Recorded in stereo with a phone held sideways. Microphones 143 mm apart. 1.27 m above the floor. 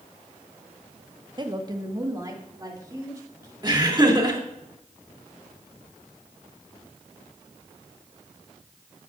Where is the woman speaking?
35° right (ahead or behind), 0.8 m; by 3.5 s 25° right (ahead or behind), 3.5 m.